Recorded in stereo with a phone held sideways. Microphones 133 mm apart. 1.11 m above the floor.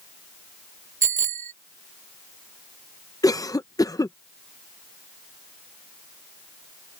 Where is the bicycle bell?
80° right.